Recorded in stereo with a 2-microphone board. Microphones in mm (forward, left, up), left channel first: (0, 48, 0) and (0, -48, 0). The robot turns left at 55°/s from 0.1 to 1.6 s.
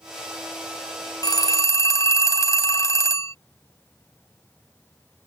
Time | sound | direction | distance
1.2 | a phone ringing | 45° left (ahead or behind) | ?